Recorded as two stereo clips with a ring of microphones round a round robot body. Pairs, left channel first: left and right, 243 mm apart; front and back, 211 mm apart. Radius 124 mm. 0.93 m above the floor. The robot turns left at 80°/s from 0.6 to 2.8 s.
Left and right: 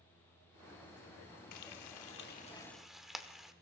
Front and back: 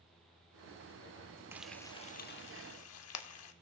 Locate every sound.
1.5 s frying: 100° left, 1.0 m; by 3.5 s straight ahead, 1.0 m